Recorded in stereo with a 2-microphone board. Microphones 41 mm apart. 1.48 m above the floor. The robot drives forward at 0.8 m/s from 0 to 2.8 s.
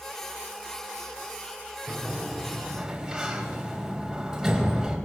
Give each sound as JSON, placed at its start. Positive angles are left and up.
{"t": 1.9, "sound": "a sliding door", "side_deg": -10, "distance_m": 4.0}